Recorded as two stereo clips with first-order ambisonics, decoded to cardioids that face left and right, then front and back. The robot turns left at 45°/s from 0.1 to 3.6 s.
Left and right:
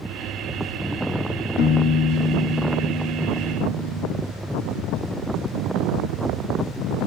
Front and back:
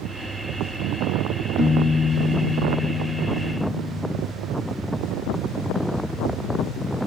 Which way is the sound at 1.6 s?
95° left.